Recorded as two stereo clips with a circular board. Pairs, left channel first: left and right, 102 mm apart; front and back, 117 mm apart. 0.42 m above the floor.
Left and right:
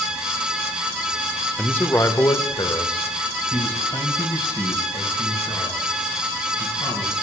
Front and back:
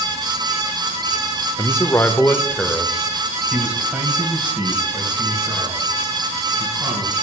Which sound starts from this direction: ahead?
A man speaking, at 1.6 s.